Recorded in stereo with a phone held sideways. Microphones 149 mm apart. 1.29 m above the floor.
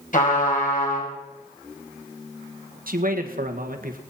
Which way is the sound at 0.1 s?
60° left (ahead or behind).